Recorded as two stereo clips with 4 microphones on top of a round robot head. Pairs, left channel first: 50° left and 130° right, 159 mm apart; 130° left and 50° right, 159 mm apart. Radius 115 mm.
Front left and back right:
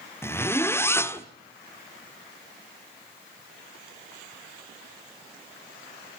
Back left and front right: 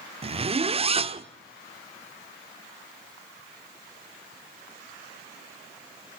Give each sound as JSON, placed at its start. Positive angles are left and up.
{"t": 0.2, "sound": "a zipper", "azimuth_deg": -15, "distance_m": 1.2}